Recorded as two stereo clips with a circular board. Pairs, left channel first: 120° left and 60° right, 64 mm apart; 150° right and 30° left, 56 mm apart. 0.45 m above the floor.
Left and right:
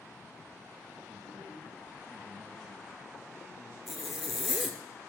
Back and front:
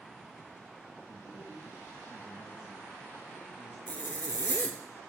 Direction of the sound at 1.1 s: 115° right.